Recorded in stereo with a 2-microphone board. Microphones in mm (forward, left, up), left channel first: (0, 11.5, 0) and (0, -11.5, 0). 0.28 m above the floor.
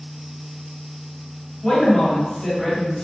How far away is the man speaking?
About 1.7 m.